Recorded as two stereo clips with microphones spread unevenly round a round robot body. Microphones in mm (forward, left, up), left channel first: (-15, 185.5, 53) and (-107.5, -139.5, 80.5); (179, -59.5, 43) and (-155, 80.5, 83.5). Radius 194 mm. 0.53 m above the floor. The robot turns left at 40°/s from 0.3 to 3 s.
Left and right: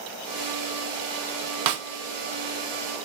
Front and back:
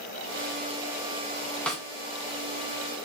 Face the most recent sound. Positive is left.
turn(degrees=-160)